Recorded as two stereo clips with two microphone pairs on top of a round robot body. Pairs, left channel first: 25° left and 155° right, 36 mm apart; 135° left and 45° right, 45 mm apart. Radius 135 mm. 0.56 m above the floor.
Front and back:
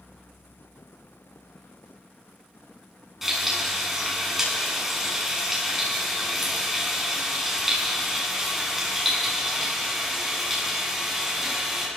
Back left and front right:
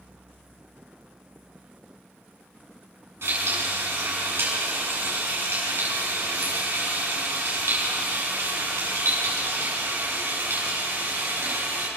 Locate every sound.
3.2 s frying: 70° right, 7.5 m